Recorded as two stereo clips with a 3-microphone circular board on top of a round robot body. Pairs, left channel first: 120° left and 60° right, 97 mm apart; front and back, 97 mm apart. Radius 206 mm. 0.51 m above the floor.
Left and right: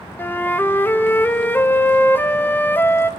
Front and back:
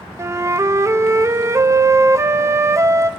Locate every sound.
0.2 s a flute: 170° left, 1.2 m